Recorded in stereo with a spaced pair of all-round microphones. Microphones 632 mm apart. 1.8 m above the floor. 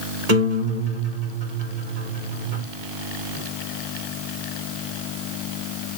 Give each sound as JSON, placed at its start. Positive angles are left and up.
{"t": 0.3, "sound": "a guitar", "side_deg": -75, "distance_m": 2.0}